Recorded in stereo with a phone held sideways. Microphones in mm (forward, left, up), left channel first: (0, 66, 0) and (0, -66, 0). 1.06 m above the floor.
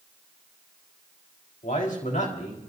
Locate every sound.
1.6 s a man speaking: 85° left, 4.5 m